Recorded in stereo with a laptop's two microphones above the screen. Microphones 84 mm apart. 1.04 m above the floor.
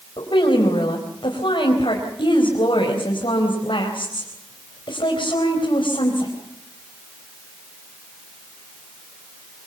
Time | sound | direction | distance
0.2 | a woman speaking | 80° left | 4.5 m